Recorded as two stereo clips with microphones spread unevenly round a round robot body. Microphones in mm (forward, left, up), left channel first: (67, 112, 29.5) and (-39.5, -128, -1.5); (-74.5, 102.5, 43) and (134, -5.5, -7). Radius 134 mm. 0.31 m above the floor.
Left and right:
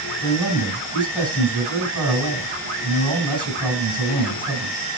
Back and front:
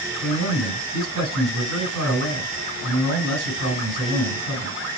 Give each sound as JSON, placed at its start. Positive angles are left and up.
{"t": 0.2, "sound": "a man speaking", "azimuth_deg": -20, "distance_m": 3.5}